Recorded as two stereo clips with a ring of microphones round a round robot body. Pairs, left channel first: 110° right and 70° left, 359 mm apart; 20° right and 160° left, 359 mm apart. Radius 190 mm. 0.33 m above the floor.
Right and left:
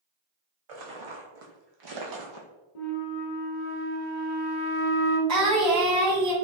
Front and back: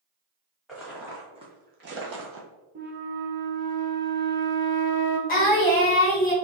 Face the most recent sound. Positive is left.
turn(degrees=35)